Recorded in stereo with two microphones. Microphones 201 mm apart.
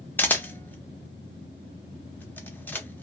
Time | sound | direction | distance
0.2 | a camera shutter | 10° left (ahead or behind) | 0.6 m